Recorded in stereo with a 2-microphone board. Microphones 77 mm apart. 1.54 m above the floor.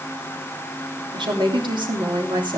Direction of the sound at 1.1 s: 85° right.